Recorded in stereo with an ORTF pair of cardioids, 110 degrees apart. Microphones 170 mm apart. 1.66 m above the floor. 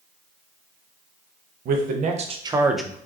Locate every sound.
1.6 s a man speaking: 60° right, 1.1 m; by 3.0 s 15° left, 0.6 m